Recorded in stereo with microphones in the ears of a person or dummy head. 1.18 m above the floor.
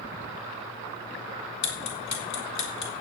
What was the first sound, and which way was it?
Ticking, 50° left (ahead or behind).